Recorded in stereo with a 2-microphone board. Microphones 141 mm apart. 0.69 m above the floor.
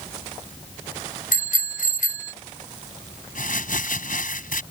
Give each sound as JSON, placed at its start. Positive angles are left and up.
{"t": 1.3, "sound": "a bicycle bell", "side_deg": 80}
{"t": 3.4, "sound": "crumpling", "side_deg": 80}